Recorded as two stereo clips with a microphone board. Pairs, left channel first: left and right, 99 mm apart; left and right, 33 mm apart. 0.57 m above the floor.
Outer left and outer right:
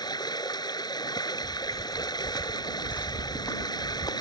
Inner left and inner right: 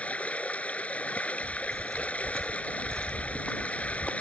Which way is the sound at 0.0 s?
45° left (ahead or behind).